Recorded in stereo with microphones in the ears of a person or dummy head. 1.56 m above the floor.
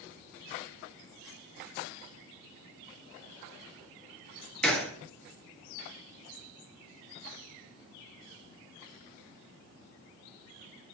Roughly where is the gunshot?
Centre.